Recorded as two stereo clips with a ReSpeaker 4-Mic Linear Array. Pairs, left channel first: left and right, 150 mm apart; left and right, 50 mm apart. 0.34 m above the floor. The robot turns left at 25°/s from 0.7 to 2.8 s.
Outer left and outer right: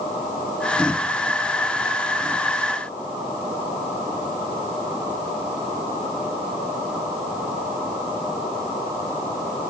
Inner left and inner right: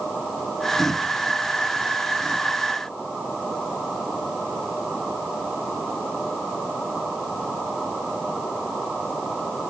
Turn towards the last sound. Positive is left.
No sound to turn to.